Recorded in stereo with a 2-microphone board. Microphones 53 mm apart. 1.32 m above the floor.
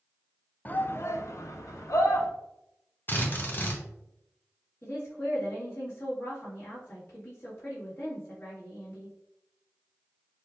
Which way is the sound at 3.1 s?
40° left (ahead or behind).